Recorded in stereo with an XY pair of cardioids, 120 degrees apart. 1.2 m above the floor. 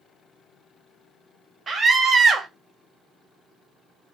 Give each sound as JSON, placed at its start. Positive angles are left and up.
{"t": 1.7, "sound": "a scream", "azimuth_deg": -35, "distance_m": 1.0}